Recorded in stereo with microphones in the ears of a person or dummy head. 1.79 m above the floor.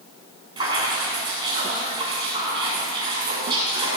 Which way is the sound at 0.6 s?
25° right (ahead or behind).